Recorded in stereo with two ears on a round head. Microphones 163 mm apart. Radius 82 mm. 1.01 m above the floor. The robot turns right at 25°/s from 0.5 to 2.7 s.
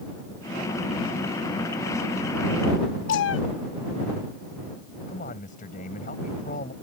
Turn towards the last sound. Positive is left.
turn(degrees=45)  # may be behind; listen again after turning